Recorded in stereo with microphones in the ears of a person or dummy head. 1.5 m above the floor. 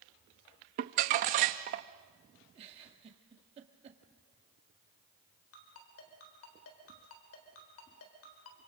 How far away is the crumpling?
About 0.9 m.